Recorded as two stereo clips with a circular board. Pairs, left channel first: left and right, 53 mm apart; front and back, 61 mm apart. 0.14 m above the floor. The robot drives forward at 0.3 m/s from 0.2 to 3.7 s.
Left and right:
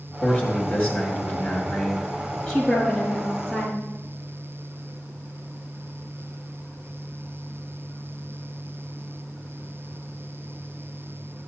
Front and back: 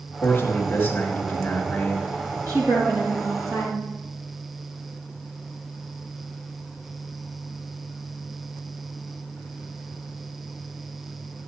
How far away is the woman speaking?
About 4 m.